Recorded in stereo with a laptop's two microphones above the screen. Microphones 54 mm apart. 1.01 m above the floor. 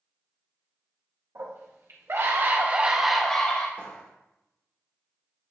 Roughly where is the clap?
Left.